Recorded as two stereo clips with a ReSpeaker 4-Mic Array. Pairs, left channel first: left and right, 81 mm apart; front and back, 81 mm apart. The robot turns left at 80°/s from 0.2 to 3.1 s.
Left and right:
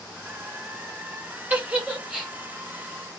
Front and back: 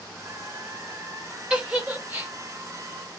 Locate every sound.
1.5 s a giggle: 120° right, 0.9 m; by 2.3 s 175° left, 0.9 m